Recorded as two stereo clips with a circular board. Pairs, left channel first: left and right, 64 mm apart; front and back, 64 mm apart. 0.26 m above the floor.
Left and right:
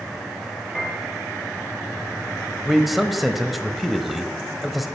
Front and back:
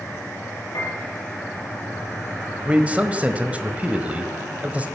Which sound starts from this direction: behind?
A man speaking, at 2.6 s.